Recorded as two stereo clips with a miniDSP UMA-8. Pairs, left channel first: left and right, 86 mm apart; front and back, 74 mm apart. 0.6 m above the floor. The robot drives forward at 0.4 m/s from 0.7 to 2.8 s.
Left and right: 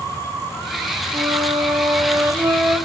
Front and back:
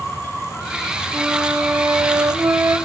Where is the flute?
115° right, 1.1 m; by 2.8 s 140° right, 1.5 m.